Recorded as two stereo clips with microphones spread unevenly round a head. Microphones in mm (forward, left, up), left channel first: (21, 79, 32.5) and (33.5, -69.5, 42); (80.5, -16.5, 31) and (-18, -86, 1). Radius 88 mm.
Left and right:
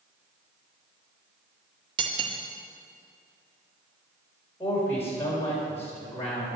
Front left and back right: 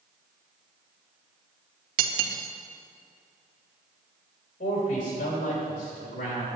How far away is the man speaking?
About 4 m.